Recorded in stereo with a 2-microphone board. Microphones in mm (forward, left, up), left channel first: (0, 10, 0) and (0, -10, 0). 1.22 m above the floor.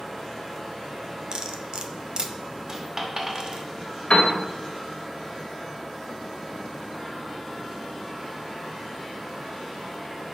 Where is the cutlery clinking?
45° right (ahead or behind), 0.6 m.